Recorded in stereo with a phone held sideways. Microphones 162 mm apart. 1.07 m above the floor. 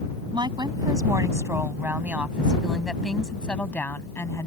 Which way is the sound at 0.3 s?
30° right (ahead or behind).